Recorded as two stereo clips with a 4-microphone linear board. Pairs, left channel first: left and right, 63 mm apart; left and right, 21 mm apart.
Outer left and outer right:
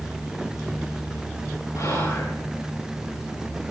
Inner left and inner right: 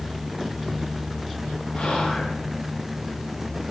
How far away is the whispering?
About 6 m.